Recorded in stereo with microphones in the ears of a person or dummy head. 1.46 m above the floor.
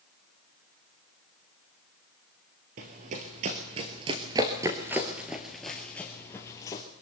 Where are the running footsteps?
40° right (ahead or behind), 2.0 m; by 6.8 s 20° left (ahead or behind), 2 m.